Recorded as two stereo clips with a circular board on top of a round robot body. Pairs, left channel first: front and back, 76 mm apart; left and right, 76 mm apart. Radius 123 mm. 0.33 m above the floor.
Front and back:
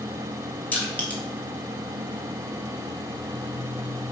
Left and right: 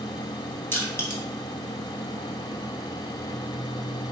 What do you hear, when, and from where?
0.7 s crushing: 55° left, 1.5 m